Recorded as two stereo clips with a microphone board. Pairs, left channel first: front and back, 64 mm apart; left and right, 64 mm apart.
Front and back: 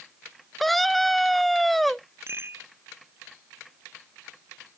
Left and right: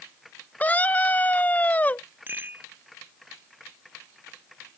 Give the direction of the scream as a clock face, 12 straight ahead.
9 o'clock.